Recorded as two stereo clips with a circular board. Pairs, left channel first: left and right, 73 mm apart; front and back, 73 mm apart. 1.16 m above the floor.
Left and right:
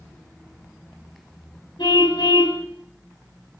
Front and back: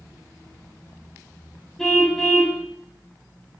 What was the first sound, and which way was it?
A car horn, 85° left.